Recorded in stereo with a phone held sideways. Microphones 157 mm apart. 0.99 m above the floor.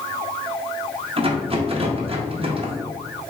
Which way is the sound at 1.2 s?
35° right (ahead or behind).